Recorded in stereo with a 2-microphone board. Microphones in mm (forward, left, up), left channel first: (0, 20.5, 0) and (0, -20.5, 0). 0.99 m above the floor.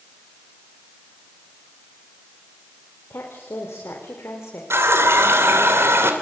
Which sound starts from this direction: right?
A running tap, at 4.7 s.